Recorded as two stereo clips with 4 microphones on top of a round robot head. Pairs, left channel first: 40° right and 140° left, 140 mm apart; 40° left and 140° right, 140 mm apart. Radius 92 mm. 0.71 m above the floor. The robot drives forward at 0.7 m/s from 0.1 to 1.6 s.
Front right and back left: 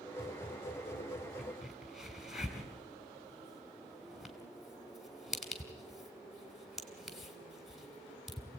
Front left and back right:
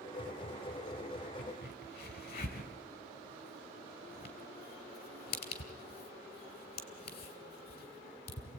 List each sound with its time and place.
1.4 s a crack: 50° left, 3 m